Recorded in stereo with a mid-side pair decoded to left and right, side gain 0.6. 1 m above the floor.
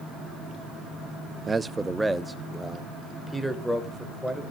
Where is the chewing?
No chewing in this recording.